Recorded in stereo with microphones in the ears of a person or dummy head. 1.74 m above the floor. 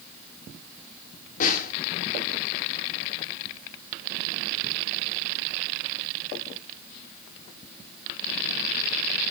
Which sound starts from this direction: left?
A snare drum, at 1.4 s.